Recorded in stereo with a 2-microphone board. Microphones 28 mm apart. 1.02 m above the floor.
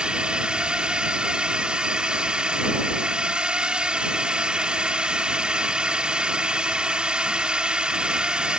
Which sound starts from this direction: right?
A drone, at 0.0 s.